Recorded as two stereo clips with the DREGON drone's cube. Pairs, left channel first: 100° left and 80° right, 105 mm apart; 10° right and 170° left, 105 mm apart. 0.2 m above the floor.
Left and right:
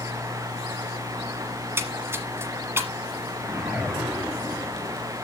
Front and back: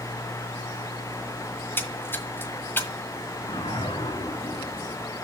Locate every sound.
1.6 s a splash: 50° right, 1.2 m
3.4 s a whoosh: 5° left, 2.5 m